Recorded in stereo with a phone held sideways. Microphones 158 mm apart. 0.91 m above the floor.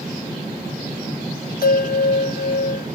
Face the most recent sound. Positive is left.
turn(degrees=70)  # may be behind; listen again after turning